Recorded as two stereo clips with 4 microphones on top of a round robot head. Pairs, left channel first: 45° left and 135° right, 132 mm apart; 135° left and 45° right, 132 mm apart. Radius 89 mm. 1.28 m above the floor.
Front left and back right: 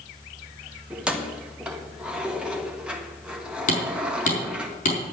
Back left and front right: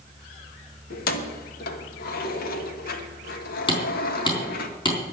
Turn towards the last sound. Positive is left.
turn(degrees=80)